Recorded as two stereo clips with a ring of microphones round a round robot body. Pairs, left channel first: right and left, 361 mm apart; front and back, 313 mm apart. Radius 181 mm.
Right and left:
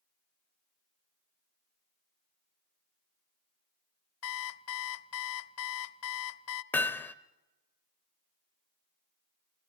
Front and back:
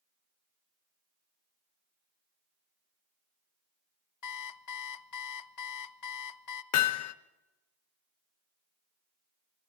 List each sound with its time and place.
4.2 s an alarm clock: 40° right, 0.5 m
6.7 s hammering: 5° right, 0.7 m